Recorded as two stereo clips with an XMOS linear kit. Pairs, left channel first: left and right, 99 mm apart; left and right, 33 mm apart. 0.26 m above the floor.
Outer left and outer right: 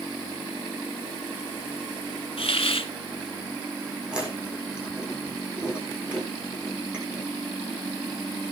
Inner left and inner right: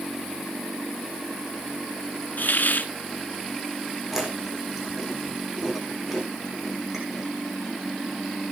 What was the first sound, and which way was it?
A hiss, 75° left (ahead or behind).